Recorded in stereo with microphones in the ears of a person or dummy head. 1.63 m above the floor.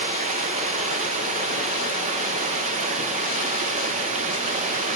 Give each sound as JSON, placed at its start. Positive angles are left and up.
{"t": 0.0, "sound": "running water", "side_deg": -40, "distance_m": 0.9}